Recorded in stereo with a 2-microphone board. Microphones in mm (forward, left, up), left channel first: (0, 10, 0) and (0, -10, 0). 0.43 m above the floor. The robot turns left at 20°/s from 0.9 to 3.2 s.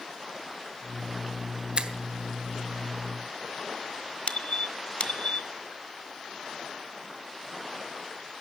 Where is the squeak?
70° left (ahead or behind), 1.1 m.